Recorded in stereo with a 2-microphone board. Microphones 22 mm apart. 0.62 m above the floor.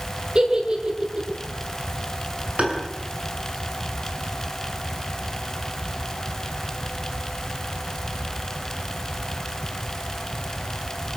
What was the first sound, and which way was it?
A giggle, 45° right (ahead or behind).